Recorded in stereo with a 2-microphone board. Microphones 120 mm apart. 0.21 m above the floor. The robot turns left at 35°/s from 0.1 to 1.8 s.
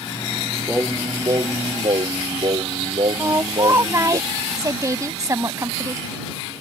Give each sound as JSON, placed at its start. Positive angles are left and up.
{"t": 0.7, "sound": "singing", "azimuth_deg": -20}
{"t": 3.2, "sound": "a woman speaking", "side_deg": -30}